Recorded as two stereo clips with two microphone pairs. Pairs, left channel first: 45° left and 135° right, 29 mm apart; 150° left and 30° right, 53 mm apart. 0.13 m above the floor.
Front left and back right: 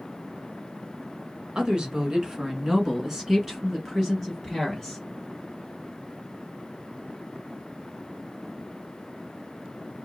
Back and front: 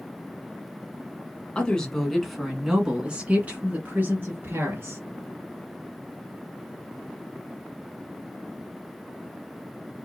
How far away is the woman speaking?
About 1.8 m.